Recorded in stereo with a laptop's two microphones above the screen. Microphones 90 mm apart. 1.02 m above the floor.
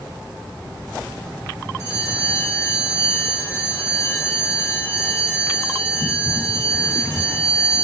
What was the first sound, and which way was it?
A bell, 30° left (ahead or behind).